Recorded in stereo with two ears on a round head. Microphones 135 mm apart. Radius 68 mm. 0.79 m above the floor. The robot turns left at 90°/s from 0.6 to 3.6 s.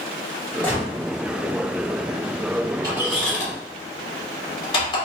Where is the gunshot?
10° left (ahead or behind), 1.1 m; by 0.9 s 25° left (ahead or behind), 1.1 m.